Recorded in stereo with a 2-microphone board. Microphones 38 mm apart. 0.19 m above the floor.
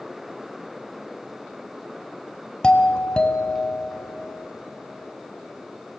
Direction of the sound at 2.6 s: 25° left (ahead or behind).